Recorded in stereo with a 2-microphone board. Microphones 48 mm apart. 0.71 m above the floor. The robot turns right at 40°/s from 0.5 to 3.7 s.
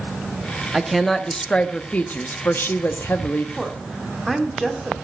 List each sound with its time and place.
0.7 s a woman speaking: 5° right, 0.7 m; by 3.5 s 100° left, 0.7 m
3.6 s a woman speaking: 5° left (ahead or behind), 1.4 m; by 4.9 s centre (ahead or behind), 1.4 m